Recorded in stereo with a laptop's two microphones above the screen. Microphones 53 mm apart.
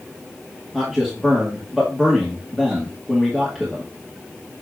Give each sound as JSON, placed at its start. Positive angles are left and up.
{"t": 0.7, "sound": "a man speaking", "side_deg": -5, "distance_m": 2.5}